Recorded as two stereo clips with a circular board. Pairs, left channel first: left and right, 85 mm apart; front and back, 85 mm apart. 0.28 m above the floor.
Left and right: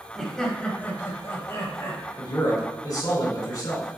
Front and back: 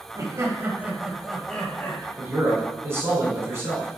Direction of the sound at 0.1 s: 175° left.